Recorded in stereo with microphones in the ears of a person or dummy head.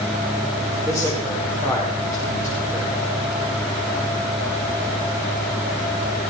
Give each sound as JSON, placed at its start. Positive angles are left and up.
{"t": 0.8, "sound": "a man speaking", "side_deg": 15, "distance_m": 5.5}